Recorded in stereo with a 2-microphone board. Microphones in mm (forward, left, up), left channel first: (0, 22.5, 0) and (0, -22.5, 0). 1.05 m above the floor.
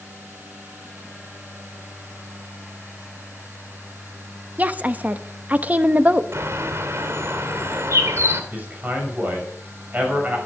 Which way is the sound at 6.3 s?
70° right (ahead or behind).